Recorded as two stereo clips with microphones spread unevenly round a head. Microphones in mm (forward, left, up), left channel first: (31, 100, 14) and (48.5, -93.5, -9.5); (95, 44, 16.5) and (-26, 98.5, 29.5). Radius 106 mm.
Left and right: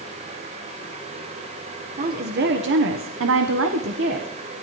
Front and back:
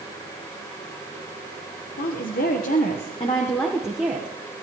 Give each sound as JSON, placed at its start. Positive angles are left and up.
{"t": 2.0, "sound": "a woman speaking", "azimuth_deg": -40, "distance_m": 1.4}